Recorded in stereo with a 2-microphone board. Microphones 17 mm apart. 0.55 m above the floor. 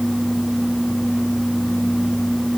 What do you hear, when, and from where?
Only background noise.